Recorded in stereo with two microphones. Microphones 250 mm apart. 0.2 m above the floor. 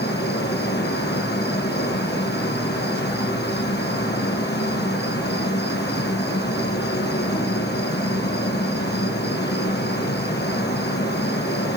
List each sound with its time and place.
0.0 s an insect: 40° left (ahead or behind), 3.5 m